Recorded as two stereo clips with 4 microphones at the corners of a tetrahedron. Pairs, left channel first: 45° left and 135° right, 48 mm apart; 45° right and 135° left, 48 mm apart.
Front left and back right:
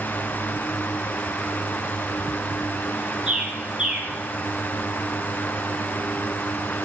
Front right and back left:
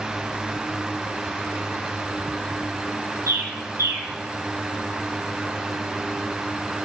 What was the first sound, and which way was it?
A bird, 150° left.